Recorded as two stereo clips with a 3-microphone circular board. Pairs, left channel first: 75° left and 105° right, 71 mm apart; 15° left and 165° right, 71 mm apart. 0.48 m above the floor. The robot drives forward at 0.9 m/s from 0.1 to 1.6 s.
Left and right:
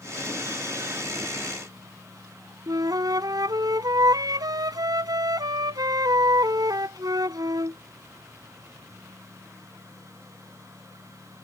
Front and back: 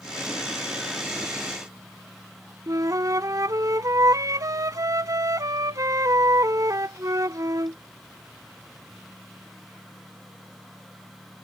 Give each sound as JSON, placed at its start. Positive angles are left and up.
{"t": 2.7, "sound": "a flute", "azimuth_deg": -130}